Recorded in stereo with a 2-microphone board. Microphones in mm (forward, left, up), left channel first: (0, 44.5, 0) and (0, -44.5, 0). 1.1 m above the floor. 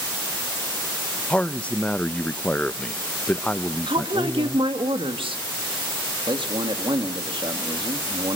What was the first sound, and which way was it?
A man speaking, 15° left (ahead or behind).